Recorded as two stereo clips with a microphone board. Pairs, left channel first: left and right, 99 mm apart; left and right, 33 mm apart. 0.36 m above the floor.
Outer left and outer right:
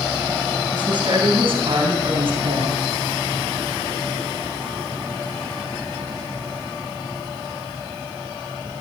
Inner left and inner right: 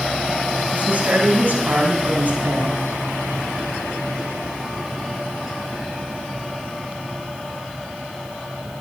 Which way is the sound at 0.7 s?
50° right (ahead or behind).